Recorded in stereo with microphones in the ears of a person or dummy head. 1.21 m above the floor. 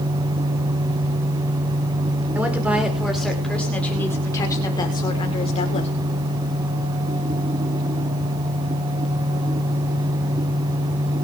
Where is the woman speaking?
5° right (ahead or behind), 4.5 m; by 5.9 s 40° left (ahead or behind), 4.5 m.